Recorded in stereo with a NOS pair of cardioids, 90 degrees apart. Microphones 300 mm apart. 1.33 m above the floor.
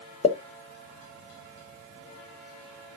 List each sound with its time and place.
0.2 s a pop: 20° left, 1.1 m